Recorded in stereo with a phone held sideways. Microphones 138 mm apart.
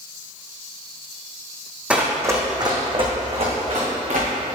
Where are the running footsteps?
10° right (ahead or behind), 2.0 m; by 4.3 s 55° right (ahead or behind), 3.5 m.